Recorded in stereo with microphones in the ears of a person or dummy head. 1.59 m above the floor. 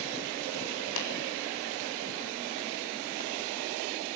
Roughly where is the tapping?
Left.